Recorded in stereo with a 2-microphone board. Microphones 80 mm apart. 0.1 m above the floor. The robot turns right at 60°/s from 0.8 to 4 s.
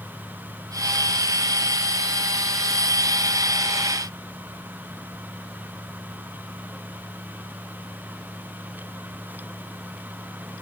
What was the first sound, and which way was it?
Only background noise.